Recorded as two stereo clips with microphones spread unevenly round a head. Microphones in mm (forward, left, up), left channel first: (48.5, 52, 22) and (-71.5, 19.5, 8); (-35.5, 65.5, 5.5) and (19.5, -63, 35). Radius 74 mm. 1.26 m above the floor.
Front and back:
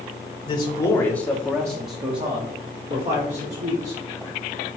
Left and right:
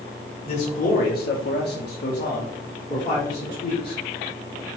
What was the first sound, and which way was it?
A man speaking, 65° left.